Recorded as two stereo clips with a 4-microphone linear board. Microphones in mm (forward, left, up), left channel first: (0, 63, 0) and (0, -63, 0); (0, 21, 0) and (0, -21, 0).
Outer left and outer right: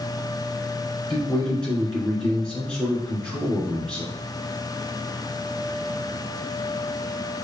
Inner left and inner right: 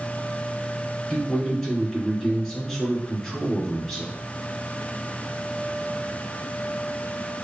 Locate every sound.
1.1 s a man speaking: 5° left (ahead or behind), 2.5 m